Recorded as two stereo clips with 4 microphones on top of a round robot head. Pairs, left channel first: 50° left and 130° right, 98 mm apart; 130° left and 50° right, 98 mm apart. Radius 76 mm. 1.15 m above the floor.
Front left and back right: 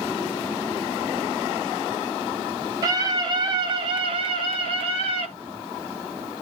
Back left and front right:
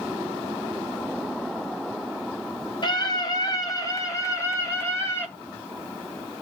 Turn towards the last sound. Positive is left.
turn(degrees=-160)